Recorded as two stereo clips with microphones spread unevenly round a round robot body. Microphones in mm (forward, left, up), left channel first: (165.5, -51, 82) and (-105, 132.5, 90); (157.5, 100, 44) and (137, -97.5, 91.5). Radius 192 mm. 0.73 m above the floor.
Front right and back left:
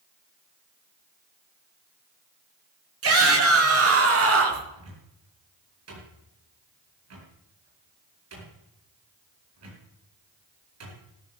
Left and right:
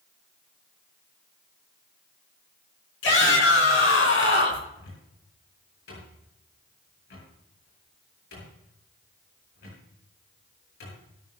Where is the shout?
100° left, 7 m.